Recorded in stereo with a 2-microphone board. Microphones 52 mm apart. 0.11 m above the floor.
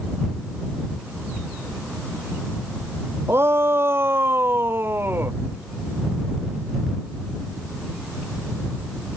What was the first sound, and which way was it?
A shout, 55° right (ahead or behind).